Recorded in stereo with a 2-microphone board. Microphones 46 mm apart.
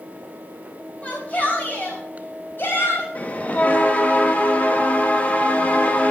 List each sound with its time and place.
1.0 s a shout: 30° left (ahead or behind), 4.5 m; by 3.0 s 50° left (ahead or behind), 5 m
3.1 s a bell: 35° left (ahead or behind), 1.3 m